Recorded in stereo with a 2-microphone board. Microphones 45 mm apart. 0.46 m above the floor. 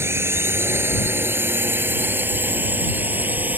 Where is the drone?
65° right (ahead or behind); by 3.6 s 40° right (ahead or behind).